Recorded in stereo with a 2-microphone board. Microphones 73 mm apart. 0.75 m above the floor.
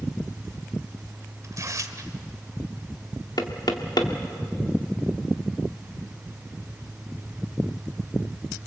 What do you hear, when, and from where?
1.4 s tearing paper: 45° right (ahead or behind), 1.5 m
3.4 s knocking: 65° left (ahead or behind), 1.8 m